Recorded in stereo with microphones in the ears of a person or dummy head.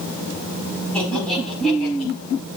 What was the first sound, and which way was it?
Laughter, 5° left (ahead or behind).